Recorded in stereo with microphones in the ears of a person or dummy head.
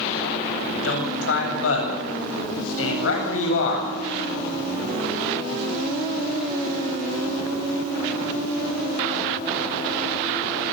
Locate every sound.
0.7 s a man speaking: 85° left, 8.5 m